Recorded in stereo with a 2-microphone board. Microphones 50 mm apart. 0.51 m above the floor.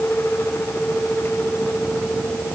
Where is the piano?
I don't hear a piano.